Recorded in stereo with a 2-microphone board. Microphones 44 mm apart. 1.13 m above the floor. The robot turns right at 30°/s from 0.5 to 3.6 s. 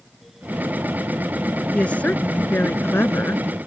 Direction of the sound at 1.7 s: 30° left.